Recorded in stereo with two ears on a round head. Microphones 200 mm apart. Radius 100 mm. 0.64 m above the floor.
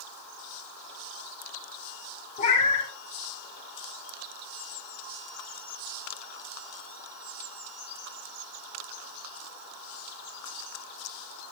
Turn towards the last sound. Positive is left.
turn(degrees=30)  # may be behind; listen again after turning